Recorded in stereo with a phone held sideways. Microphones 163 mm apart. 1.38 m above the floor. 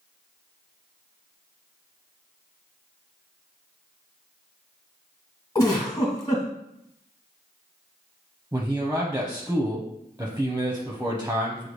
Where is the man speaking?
15° right (ahead or behind), 0.7 m.